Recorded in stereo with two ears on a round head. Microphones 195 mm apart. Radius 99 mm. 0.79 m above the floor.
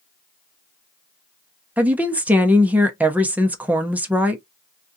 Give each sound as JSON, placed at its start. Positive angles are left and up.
{"t": 1.8, "sound": "a woman speaking", "side_deg": -5, "distance_m": 0.7}